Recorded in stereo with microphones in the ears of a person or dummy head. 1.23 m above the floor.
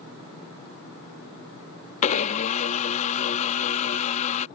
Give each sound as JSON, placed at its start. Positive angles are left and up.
{"t": 2.0, "sound": "a blender", "side_deg": 40}